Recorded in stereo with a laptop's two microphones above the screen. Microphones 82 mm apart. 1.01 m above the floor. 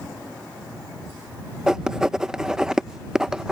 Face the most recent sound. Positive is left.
turn(degrees=-10)  # may be behind; listen again after turning